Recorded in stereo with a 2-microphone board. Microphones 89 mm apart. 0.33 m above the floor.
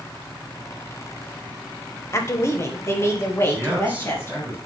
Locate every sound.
2.1 s a woman speaking: 30° left (ahead or behind), 1.1 m
3.5 s a man speaking: 15° right (ahead or behind), 4.5 m